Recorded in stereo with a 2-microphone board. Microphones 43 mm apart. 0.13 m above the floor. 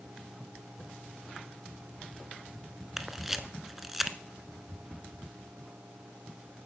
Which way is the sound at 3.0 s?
5° right (ahead or behind).